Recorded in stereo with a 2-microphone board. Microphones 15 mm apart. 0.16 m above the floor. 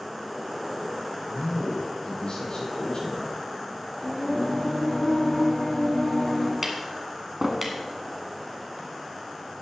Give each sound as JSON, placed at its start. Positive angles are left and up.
{"t": 1.3, "sound": "a man speaking", "side_deg": 60, "distance_m": 5.0}
{"t": 4.0, "sound": "singing", "side_deg": 45, "distance_m": 3.0}
{"t": 6.6, "sound": "tapping", "side_deg": -15, "distance_m": 1.6}